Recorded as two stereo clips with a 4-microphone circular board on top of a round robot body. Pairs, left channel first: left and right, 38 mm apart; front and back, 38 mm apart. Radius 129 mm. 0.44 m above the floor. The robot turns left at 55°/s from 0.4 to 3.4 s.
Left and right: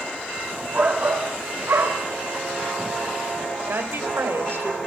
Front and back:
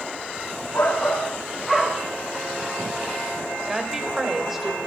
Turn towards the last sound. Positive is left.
turn(degrees=-95)